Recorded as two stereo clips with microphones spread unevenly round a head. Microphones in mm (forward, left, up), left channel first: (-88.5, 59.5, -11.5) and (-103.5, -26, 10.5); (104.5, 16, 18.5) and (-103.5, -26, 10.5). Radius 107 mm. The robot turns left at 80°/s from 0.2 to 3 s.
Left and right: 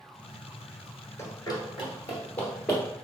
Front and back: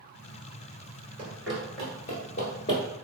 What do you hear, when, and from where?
1.2 s running footsteps: 135° left, 1.6 m; by 2.8 s 50° right, 1.7 m